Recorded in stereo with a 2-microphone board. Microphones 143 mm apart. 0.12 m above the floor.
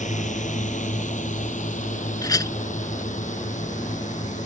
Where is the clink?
25° left (ahead or behind).